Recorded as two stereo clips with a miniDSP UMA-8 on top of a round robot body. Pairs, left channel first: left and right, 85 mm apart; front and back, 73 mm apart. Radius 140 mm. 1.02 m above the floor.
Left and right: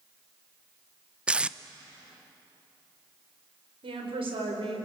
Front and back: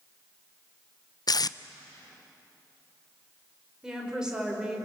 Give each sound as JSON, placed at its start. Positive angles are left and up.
{"t": 1.3, "sound": "tape being pulled", "azimuth_deg": -15, "distance_m": 0.7}
{"t": 3.8, "sound": "a woman speaking", "azimuth_deg": -100, "distance_m": 5.0}